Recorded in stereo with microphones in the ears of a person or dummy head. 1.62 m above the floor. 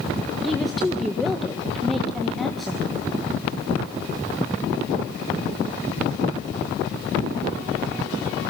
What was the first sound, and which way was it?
A woman speaking, centre (ahead or behind).